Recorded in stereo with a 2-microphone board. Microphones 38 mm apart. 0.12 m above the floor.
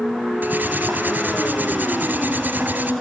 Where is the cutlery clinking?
55° right (ahead or behind), 1.3 m.